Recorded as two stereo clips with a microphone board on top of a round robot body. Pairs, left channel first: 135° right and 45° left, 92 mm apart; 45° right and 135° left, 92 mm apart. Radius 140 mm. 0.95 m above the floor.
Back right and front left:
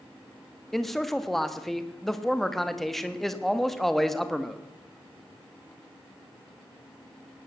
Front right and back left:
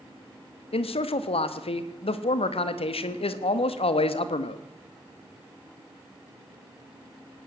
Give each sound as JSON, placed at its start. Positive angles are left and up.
{"t": 0.7, "sound": "a man speaking", "azimuth_deg": -50, "distance_m": 1.4}